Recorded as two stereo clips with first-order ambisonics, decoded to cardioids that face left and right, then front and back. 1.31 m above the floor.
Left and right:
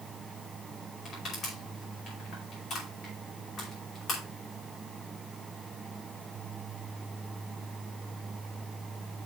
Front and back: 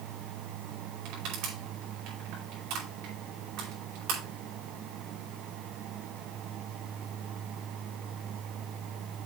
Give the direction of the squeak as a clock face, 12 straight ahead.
I don't hear a squeak.